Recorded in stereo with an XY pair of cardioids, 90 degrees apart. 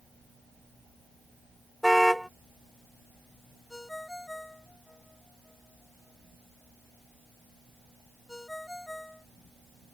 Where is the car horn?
Straight ahead.